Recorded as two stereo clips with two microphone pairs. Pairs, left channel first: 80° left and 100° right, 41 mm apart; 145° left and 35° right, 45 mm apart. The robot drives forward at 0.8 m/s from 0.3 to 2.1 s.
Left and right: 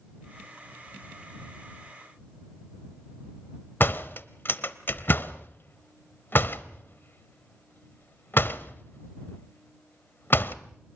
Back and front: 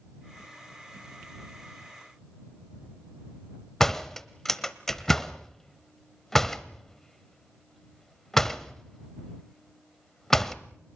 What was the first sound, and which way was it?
A door slam, 70° left.